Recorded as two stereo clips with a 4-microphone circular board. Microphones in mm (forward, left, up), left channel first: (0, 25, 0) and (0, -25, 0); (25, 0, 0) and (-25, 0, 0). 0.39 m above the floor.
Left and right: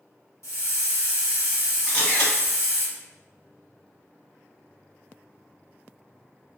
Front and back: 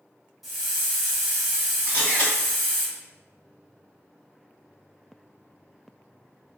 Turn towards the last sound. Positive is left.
turn(degrees=60)